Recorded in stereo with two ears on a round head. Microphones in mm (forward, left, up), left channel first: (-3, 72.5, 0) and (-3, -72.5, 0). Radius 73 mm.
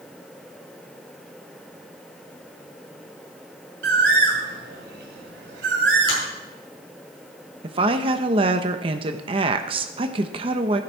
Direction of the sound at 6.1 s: 65° left (ahead or behind).